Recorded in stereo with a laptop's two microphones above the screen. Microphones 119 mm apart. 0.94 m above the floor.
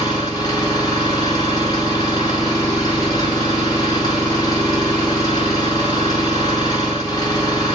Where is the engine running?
35° left (ahead or behind), 0.8 m.